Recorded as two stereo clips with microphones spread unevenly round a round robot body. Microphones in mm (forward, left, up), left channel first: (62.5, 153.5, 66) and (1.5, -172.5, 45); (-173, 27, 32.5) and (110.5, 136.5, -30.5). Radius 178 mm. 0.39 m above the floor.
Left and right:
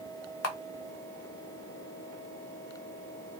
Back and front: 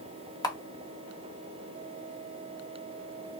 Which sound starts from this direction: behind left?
A camera shutter, at 0.4 s.